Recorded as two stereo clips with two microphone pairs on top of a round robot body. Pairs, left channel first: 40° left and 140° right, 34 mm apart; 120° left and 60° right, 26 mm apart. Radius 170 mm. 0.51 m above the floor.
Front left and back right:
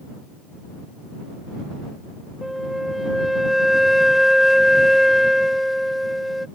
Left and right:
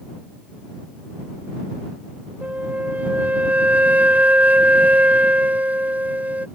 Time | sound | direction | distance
2.4 | a flute | 60° right | ?